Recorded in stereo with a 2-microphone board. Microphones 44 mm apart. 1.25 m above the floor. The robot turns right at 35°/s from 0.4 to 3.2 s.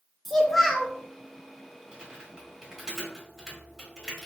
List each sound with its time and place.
0.2 s a child speaking: 5° left (ahead or behind), 0.5 m; by 0.9 s centre (ahead or behind), 0.5 m
1.9 s typing on a keyboard: 25° right (ahead or behind), 1.3 m; by 4.3 s centre (ahead or behind), 1.3 m